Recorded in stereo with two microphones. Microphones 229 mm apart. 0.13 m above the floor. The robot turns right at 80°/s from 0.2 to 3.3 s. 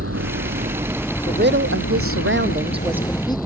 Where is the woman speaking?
145° right; by 3.4 s 20° left.